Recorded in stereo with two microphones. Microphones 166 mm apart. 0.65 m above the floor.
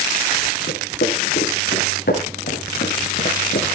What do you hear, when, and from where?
0.7 s footsteps: 70° left (ahead or behind), 6.5 m